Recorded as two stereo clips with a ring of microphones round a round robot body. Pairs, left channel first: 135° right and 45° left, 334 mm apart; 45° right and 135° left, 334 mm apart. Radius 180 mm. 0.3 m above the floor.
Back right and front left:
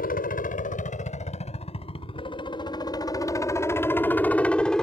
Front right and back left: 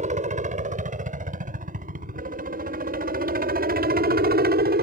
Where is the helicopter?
175° right; by 4.8 s 140° left.